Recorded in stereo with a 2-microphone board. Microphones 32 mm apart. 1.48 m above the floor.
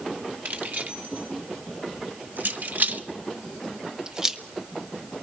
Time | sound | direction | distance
0.5 | keys jangling | 60° right (ahead or behind) | 2.5 m